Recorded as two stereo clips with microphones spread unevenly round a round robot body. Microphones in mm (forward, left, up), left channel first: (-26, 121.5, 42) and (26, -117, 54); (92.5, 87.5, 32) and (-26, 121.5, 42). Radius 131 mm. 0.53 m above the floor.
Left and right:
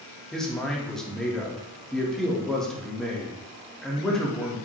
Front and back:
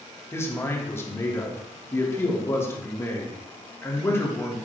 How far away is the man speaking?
About 1.5 m.